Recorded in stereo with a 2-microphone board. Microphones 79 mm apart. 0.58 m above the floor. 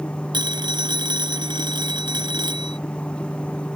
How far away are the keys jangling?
I don't hear keys jangling.